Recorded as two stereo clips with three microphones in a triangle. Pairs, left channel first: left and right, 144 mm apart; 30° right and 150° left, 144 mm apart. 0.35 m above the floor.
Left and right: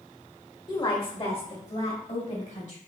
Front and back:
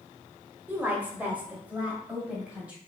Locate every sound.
0.7 s a woman speaking: 85° left, 1.4 m; by 2.8 s 70° left, 2.5 m